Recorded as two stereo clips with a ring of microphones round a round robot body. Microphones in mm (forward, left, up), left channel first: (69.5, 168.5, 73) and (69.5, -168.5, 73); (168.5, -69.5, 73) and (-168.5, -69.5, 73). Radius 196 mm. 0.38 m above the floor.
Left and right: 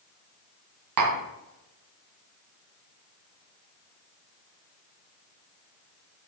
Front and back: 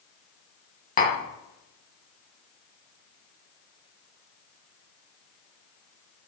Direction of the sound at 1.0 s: 65° right.